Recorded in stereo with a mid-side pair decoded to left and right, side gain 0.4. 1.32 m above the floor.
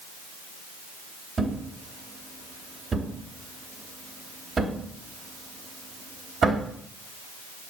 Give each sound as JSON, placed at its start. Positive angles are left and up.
{"t": 1.4, "sound": "a thud", "azimuth_deg": -40, "distance_m": 3.0}